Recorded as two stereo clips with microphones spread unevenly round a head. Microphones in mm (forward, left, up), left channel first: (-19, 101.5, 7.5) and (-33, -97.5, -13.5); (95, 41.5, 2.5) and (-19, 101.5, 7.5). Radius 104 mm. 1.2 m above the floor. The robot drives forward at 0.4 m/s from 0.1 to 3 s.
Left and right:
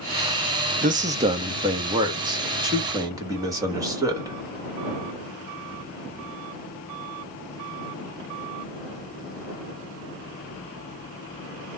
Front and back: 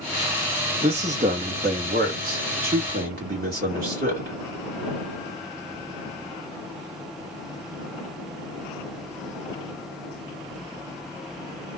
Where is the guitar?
No guitar in this recording.